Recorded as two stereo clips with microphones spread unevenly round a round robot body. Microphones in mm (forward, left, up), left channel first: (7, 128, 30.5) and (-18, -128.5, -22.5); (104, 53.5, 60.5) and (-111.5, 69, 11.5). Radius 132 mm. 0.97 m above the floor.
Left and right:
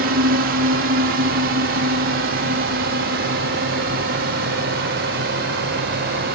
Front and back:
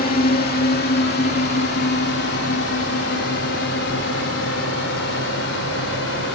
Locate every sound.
0.0 s a drone: 55° right; by 6.3 s 45° right